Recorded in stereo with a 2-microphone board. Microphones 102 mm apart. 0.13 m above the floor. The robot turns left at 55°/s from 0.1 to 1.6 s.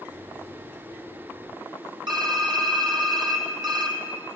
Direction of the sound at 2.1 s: 50° right (ahead or behind).